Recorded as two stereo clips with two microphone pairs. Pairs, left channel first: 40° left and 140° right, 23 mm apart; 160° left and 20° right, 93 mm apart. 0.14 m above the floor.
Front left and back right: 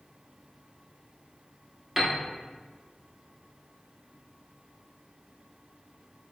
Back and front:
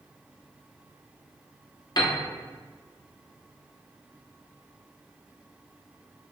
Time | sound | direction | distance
2.0 | a piano | 150° left | 0.7 m